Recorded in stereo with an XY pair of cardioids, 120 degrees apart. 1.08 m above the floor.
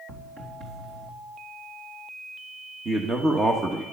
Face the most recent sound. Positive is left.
turn(degrees=-30)